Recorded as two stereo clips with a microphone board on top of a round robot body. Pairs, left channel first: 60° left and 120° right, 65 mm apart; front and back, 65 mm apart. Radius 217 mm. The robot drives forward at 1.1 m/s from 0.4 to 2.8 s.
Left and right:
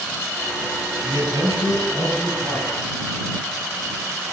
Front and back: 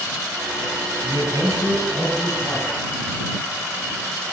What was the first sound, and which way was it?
A man speaking, 140° right.